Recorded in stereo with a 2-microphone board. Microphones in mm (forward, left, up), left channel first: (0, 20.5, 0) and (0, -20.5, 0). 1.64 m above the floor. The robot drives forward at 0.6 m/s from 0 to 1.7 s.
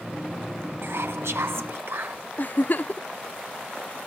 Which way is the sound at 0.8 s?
70° right (ahead or behind).